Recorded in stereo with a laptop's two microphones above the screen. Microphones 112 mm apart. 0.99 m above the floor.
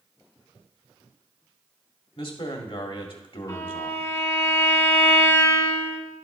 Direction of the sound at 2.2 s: 55° left (ahead or behind).